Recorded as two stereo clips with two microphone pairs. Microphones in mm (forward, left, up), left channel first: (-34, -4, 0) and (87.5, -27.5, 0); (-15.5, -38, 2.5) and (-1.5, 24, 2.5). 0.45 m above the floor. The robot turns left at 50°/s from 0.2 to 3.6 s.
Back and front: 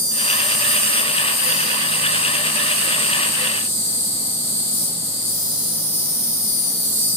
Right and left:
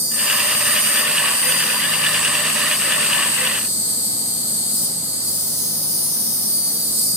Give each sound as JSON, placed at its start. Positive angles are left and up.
{"t": 0.0, "sound": "an insect", "azimuth_deg": -75, "distance_m": 1.4}